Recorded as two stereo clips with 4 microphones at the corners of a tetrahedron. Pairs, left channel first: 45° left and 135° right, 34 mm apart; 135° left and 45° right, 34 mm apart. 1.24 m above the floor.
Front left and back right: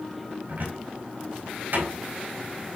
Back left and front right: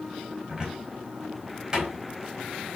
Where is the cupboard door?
110° right, 4 m.